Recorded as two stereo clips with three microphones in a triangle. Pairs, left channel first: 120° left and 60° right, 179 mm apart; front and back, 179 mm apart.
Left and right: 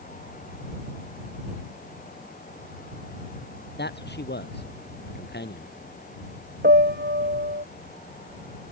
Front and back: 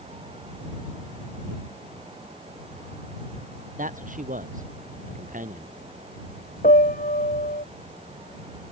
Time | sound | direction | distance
3.8 | a man speaking | 140° left | ?
6.6 | a piano | 40° right | ?